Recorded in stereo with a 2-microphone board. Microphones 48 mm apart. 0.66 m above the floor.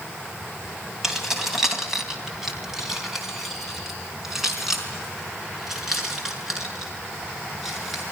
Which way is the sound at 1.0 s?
5° right (ahead or behind).